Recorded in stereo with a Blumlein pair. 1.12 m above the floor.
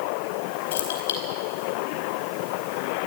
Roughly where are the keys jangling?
Ahead left.